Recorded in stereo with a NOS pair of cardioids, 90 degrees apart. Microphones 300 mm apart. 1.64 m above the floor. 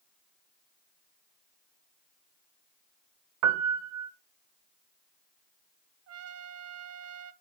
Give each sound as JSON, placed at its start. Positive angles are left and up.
{"t": 3.4, "sound": "a piano", "azimuth_deg": -65, "distance_m": 1.0}
{"t": 6.1, "sound": "a trumpet", "azimuth_deg": -60, "distance_m": 0.8}